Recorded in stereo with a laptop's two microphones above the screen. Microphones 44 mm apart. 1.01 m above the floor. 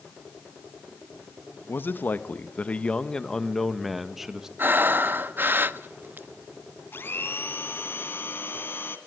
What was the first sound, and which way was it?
A man speaking, 45° left (ahead or behind).